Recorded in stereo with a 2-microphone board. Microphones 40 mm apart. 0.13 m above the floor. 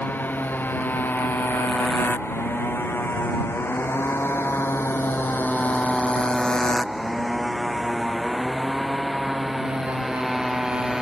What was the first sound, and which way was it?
A motorcycle, 55° left (ahead or behind).